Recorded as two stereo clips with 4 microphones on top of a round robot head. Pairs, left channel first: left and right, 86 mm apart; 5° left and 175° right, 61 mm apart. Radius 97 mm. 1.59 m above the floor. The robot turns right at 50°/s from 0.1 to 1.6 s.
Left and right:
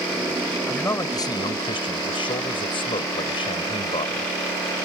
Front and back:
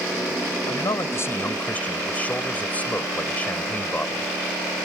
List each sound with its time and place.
0.7 s a man speaking: 20° left; by 4.3 s 65° left